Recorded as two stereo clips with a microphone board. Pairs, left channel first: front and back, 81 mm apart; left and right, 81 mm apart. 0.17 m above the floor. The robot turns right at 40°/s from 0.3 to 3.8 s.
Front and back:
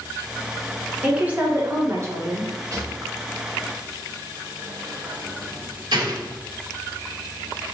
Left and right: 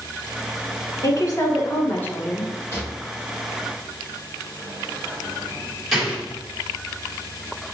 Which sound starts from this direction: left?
A woman speaking, at 1.0 s.